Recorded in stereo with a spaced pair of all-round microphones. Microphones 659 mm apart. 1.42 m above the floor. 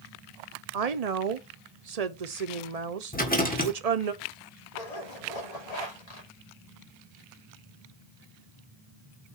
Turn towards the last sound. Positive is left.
turn(degrees=70)  # may be behind; listen again after turning